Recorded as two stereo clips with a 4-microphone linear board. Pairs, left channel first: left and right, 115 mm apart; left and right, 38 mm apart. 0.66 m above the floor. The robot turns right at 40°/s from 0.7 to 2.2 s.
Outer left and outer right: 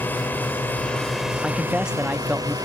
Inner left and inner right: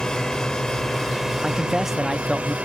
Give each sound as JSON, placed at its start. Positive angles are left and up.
{"t": 0.0, "sound": "a drone", "azimuth_deg": 160}
{"t": 1.4, "sound": "a man speaking", "side_deg": 5}